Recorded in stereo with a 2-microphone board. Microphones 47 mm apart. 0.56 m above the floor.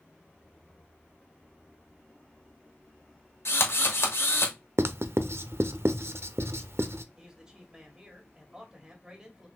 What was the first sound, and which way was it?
A drill, 65° left (ahead or behind).